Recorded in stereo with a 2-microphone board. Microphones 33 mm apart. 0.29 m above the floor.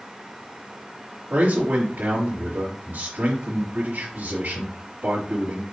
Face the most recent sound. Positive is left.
turn(degrees=-65)  # may be behind; listen again after turning